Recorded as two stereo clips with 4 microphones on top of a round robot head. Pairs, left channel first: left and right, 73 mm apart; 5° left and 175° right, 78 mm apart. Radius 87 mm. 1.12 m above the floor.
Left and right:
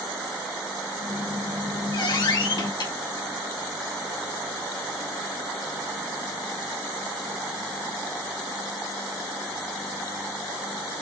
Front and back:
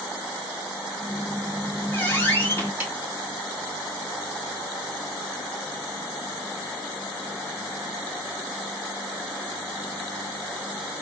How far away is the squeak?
About 1.9 m.